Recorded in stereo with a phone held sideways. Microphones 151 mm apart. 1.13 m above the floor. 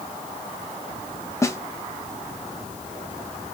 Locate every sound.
1.4 s a snare drum: 20° left (ahead or behind), 0.6 m